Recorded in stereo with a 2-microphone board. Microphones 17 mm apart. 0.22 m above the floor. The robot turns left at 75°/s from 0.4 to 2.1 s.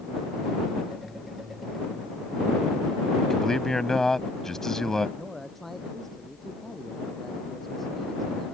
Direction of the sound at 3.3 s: 25° left (ahead or behind).